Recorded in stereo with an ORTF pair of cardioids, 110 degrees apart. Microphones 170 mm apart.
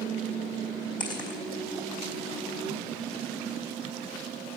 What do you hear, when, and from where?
1.0 s footsteps: 25° left, 3 m